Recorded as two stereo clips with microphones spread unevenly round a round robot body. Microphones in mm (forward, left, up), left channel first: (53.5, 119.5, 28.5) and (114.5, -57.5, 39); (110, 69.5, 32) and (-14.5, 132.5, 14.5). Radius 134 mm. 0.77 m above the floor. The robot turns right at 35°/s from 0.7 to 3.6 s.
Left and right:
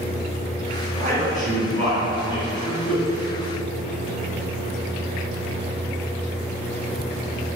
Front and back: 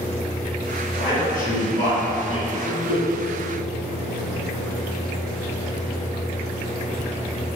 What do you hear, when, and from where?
0.9 s a man speaking: 50° right, 1.9 m; by 3.0 s 25° left, 1.9 m